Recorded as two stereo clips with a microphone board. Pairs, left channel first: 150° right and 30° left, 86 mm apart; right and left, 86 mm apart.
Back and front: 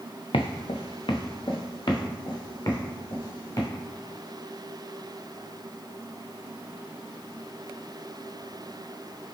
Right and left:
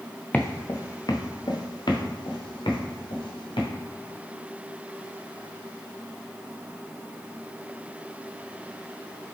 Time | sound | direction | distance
0.3 | footsteps | 165° right | 0.6 m